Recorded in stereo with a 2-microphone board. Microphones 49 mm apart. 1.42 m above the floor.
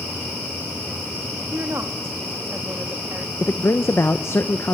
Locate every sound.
1.5 s a woman speaking: 60° right (ahead or behind), 2 m
3.4 s a man speaking: 60° left (ahead or behind), 0.9 m